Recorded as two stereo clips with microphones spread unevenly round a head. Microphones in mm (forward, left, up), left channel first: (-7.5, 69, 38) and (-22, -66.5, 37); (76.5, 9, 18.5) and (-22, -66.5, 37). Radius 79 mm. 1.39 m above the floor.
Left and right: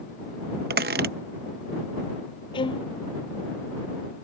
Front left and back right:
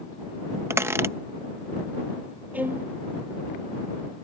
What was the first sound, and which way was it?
A squeak, 80° right.